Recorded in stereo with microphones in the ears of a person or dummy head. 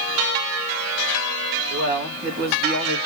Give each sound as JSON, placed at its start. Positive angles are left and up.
{"t": 1.7, "sound": "a man speaking", "side_deg": -65, "distance_m": 1.6}